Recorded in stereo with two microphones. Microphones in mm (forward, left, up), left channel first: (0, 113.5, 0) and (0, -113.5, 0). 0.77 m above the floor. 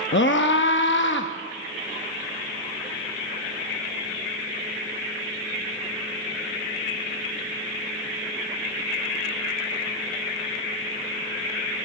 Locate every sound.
0.1 s a scream: 55° left (ahead or behind), 0.7 m